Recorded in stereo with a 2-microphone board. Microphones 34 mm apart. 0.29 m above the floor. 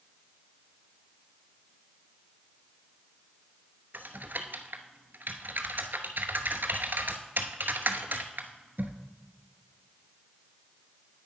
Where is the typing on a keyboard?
65° right (ahead or behind), 0.9 m.